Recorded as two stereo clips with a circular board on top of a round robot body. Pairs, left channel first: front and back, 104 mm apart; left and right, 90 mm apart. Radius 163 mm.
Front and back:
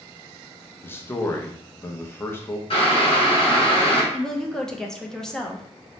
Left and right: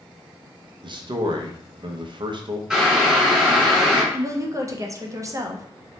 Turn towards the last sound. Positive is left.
turn(degrees=-80)